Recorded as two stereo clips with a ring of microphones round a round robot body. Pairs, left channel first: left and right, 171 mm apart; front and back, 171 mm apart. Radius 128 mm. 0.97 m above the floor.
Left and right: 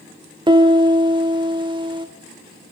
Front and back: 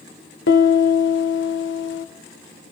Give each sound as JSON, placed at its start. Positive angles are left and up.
{"t": 0.5, "sound": "a piano", "azimuth_deg": -25, "distance_m": 2.5}